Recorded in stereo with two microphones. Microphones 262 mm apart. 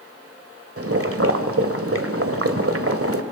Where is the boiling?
60° right (ahead or behind), 1.5 m.